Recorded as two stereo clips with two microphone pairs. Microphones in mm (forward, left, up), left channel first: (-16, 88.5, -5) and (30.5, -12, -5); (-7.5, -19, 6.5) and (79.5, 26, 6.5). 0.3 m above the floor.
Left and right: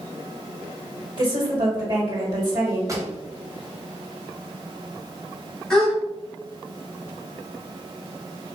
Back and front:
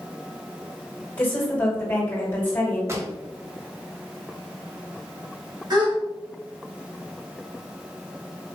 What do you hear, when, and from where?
1.2 s a woman speaking: 85° right, 1.7 m
2.9 s a pop: 15° right, 0.7 m
5.7 s a gasp: 30° left, 1.4 m